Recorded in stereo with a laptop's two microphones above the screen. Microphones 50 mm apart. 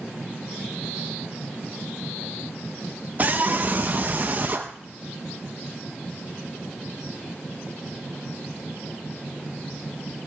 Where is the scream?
35° right (ahead or behind), 0.6 m.